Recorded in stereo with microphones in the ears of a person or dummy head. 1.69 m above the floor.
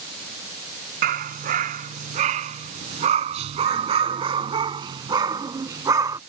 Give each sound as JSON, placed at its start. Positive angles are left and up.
{"t": 1.0, "sound": "a dog barking", "side_deg": -45}